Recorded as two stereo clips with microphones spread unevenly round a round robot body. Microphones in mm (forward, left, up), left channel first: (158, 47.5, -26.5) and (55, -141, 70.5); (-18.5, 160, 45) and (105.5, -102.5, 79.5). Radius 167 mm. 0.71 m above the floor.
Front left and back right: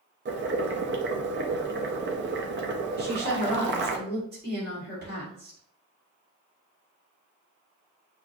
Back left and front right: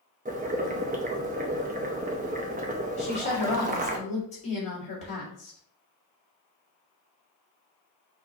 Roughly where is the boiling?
Right.